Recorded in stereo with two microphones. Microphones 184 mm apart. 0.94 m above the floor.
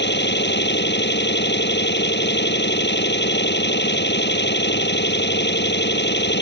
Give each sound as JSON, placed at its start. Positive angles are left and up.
{"t": 0.0, "sound": "an engine running", "side_deg": 70}